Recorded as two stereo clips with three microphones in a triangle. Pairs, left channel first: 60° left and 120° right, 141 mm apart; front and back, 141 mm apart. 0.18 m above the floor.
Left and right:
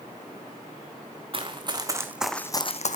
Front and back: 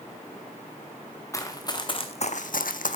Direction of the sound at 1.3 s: 70° right.